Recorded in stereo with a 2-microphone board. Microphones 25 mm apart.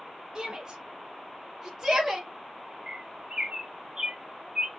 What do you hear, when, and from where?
0.3 s a shout: 25° right (ahead or behind), 1.3 m; by 2.3 s 15° right (ahead or behind), 1.5 m
2.9 s a bird: 30° right (ahead or behind), 0.6 m